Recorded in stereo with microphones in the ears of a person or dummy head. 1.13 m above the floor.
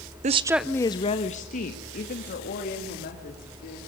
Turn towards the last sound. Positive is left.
turn(degrees=55)  # may be behind; listen again after turning